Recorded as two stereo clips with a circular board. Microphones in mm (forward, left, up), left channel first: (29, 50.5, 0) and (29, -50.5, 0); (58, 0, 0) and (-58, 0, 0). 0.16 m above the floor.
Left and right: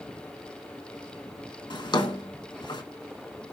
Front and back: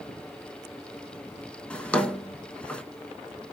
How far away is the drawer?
About 0.8 m.